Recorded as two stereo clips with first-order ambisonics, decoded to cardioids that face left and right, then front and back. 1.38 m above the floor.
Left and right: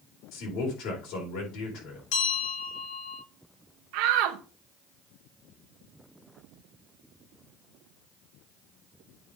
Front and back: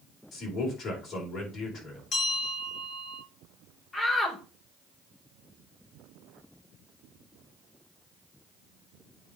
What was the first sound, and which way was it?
A man speaking, 60° left.